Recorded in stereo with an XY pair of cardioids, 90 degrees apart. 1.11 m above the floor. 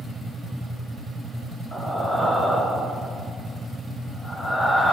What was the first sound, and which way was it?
Breathing, 25° left.